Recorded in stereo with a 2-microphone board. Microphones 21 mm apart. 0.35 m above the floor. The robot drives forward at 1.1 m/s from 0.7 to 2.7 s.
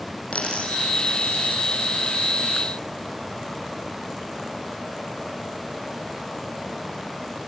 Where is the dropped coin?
85° left, 4.5 m; by 1.6 s 80° left, 4.5 m.